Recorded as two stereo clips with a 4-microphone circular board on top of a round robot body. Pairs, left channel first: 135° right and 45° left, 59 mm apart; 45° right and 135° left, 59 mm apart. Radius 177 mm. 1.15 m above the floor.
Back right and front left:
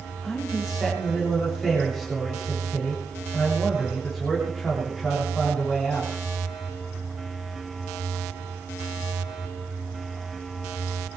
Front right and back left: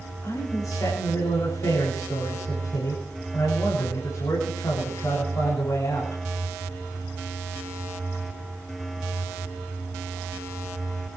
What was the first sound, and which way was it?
A man speaking, 45° right.